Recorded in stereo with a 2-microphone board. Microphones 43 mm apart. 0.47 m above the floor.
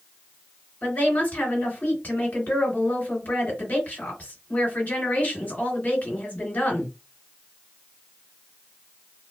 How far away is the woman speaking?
About 2.5 m.